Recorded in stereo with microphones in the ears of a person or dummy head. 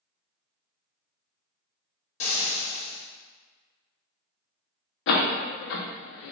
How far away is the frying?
About 1.2 m.